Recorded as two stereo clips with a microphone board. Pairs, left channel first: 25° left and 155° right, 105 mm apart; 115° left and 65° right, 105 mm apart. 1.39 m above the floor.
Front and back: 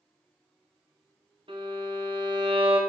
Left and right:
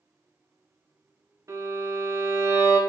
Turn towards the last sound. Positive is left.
turn(degrees=-125)